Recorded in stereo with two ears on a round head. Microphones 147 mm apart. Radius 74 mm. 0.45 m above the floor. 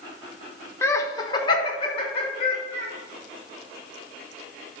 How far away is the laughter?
About 0.7 m.